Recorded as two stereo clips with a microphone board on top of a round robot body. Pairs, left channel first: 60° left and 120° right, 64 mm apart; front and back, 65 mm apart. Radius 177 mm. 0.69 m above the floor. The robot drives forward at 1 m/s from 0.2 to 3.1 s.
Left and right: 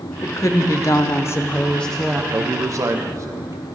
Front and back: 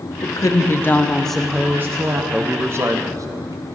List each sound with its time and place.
0.2 s a woman speaking: 25° left, 1.4 m; by 2.2 s 150° left, 1.2 m
2.3 s a man speaking: 110° right, 0.8 m; by 3.6 s 155° right, 1.2 m